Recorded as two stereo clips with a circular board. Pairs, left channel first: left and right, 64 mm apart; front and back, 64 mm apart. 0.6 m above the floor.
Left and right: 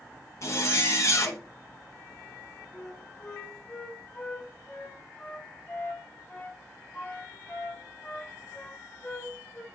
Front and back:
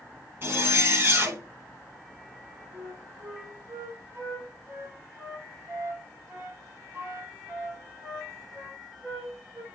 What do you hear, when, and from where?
0.4 s a zipper: 125° left, 1.1 m
2.7 s a flute: 140° left, 1.5 m